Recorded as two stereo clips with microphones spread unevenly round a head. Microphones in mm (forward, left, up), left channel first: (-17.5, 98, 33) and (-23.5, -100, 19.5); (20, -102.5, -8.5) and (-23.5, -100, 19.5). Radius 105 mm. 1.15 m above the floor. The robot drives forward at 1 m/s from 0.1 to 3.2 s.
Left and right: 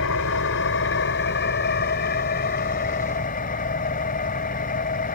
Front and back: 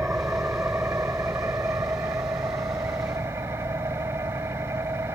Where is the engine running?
110° left; by 5.2 s 135° left.